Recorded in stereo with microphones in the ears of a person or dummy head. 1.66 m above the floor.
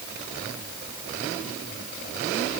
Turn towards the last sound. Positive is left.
No sound to turn to.